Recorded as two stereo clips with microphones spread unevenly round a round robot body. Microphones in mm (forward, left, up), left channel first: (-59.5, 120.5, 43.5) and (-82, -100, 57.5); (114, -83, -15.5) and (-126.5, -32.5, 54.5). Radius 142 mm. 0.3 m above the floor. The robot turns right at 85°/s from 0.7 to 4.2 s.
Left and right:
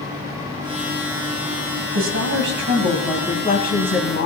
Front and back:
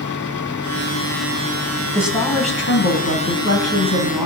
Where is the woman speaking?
105° right, 2 m; by 4.3 s 85° left, 2 m.